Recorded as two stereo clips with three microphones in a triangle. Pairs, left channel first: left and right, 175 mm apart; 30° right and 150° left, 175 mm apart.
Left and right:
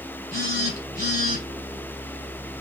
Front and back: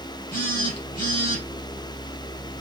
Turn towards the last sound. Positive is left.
turn(degrees=-65)